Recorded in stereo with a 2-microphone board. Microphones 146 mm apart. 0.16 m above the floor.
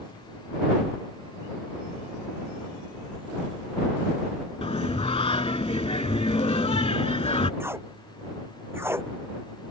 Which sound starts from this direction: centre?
Tape being pulled, at 7.6 s.